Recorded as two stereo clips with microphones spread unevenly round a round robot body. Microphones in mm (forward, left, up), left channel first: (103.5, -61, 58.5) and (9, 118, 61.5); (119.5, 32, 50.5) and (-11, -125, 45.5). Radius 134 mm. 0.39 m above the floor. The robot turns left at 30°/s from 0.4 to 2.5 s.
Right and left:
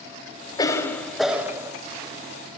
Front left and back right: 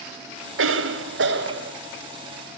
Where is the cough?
135° right, 2.5 m; by 1.7 s 170° right, 2.5 m.